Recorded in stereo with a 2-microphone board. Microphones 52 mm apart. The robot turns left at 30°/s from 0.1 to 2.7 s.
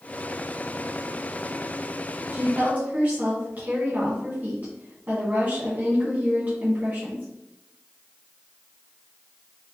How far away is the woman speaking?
About 1.7 m.